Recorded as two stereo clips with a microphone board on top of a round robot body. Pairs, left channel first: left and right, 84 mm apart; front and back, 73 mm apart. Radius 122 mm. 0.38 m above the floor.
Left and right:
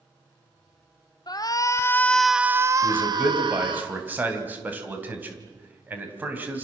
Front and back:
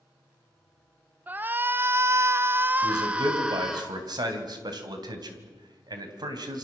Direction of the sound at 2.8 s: 160° right.